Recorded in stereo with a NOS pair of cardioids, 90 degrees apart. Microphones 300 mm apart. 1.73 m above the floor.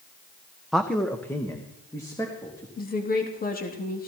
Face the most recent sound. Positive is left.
turn(degrees=30)